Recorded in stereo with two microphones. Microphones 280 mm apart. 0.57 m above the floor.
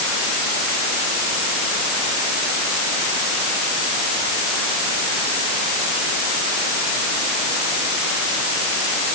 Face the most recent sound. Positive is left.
No sound to turn to.